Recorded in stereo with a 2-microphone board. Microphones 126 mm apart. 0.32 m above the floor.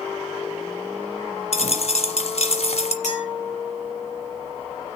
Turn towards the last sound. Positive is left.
turn(degrees=70)  # may be behind; listen again after turning